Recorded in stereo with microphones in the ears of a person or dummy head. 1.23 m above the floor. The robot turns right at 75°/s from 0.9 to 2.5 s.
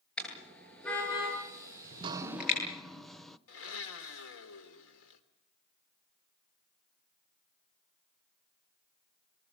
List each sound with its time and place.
0.2 s a car horn: 10° left (ahead or behind), 10 m; by 2.6 s 50° left (ahead or behind), 10 m
1.8 s dripping: 45° right, 0.8 m; by 3.4 s 5° left, 0.8 m
3.5 s a blender: 85° left, 3 m